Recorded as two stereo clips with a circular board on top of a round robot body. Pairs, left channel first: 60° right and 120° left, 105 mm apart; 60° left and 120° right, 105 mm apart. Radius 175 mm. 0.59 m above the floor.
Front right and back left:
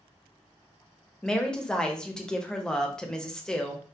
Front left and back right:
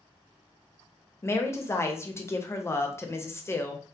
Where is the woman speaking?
20° left, 0.7 m.